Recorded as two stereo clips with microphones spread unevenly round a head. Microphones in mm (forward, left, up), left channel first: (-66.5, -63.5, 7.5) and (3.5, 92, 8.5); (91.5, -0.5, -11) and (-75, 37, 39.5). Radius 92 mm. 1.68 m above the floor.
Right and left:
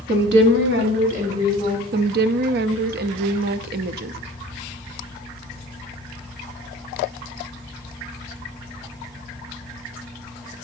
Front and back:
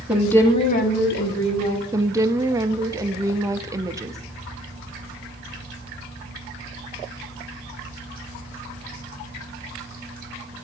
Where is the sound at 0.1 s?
90° left, 1.2 m; by 1.8 s straight ahead, 2.5 m.